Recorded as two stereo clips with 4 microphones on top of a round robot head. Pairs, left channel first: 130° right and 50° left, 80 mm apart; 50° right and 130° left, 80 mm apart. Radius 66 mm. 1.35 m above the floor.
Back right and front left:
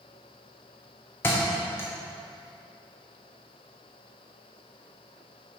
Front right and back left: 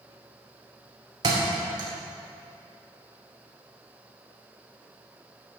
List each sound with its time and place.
1.2 s a thud: 170° left, 0.9 m